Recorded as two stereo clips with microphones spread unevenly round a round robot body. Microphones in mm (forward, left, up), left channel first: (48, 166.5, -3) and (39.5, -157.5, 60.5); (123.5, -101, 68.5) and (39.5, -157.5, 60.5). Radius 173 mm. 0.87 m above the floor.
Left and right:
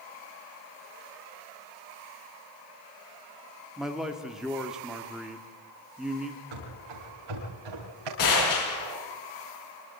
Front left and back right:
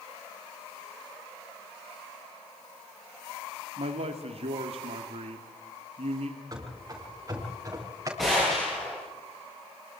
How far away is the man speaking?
About 1.6 m.